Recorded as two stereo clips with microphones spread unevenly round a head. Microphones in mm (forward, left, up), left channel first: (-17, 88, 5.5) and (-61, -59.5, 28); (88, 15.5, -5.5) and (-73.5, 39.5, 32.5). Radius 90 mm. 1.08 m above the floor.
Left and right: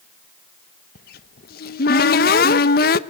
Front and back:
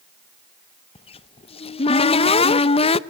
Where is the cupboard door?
45° left, 0.8 m.